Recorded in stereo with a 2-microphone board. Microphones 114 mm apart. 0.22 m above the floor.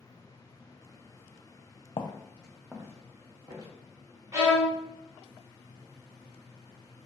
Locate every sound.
2.0 s footsteps: 50° left (ahead or behind), 0.7 m; by 3.7 s 40° right (ahead or behind), 1.8 m
4.3 s a violin: 35° right (ahead or behind), 1.3 m